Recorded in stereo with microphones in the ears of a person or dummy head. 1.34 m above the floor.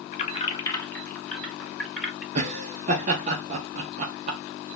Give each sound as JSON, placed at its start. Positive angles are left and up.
{"t": 0.1, "sound": "keys jangling", "side_deg": 45, "distance_m": 0.8}
{"t": 2.4, "sound": "laughter", "side_deg": -35, "distance_m": 0.6}